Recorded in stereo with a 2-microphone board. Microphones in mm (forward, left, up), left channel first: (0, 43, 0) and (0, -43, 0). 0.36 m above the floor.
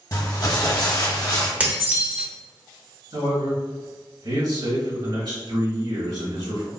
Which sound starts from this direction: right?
A man speaking, at 3.1 s.